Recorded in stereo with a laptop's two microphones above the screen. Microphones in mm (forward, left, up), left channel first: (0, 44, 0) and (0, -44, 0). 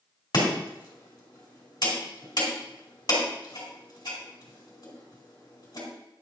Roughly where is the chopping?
Left.